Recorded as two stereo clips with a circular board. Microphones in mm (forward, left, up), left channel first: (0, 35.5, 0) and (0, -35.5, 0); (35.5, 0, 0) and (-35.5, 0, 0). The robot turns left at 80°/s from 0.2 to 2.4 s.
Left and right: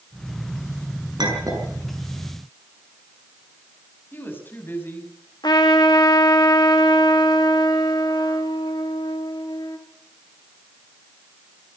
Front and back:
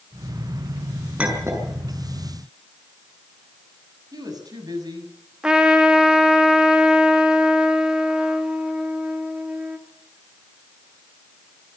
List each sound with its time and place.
1.2 s a clink: 105° right, 7 m; by 1.7 s 145° right, 7 m
4.1 s a woman speaking: 150° left, 6 m
5.4 s a trumpet: 100° left, 2 m